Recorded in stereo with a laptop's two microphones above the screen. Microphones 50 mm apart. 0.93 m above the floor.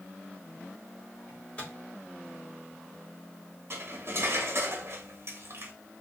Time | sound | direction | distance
1.3 | a microwave | 25° left (ahead or behind) | 2 m
3.7 | cutlery clinking | 60° right (ahead or behind) | 0.9 m